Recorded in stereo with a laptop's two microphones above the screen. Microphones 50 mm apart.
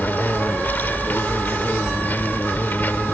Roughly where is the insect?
Left.